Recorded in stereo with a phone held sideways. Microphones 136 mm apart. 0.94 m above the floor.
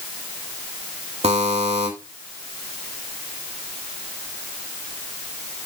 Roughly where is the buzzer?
Right.